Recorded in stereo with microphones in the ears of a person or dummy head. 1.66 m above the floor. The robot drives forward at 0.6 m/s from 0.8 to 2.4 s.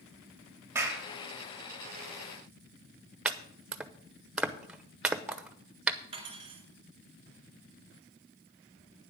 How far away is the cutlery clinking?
About 2.5 m.